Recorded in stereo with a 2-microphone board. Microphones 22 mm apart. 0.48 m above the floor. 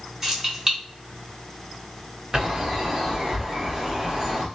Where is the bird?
30° right (ahead or behind), 1.1 m.